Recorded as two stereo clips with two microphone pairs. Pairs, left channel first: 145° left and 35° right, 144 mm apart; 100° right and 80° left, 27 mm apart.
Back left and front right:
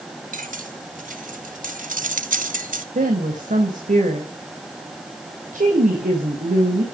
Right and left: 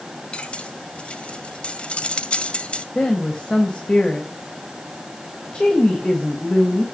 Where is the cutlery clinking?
60° right, 1.8 m.